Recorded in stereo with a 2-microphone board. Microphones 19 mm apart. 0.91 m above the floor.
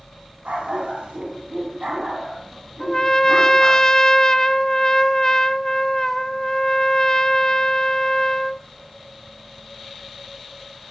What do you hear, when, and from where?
0.5 s a dog barking: 75° right (ahead or behind), 3 m; by 3.8 s 20° right (ahead or behind), 4 m
2.8 s a trumpet: 25° left (ahead or behind), 0.7 m